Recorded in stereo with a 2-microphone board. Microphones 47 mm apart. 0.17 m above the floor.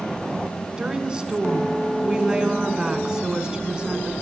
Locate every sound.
0.8 s a woman speaking: 20° right (ahead or behind), 1.4 m